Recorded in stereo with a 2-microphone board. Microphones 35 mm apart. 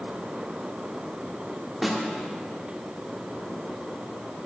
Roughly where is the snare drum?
Centre.